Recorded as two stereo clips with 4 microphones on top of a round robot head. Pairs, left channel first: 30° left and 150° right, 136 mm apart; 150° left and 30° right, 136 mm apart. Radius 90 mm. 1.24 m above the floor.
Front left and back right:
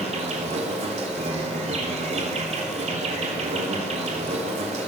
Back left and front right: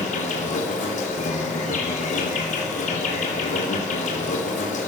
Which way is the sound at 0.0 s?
Straight behind.